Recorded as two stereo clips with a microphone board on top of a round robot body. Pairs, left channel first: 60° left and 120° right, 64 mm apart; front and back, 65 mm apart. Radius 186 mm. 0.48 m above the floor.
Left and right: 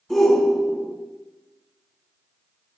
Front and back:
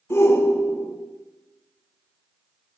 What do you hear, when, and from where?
0.1 s a shout: 25° right, 1.5 m